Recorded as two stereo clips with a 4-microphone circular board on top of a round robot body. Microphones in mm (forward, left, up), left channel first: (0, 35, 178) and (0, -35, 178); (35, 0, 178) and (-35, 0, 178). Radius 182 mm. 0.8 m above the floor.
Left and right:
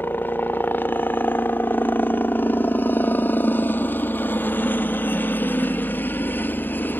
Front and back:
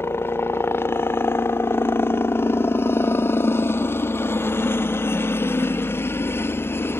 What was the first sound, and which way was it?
A helicopter, 40° left.